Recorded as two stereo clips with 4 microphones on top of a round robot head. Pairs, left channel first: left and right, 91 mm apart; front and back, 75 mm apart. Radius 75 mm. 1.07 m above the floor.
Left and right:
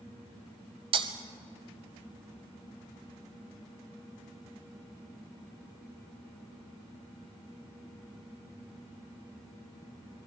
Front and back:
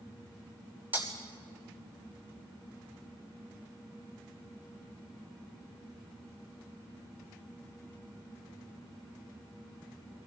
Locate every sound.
0.9 s breaking glass: 105° right, 1.2 m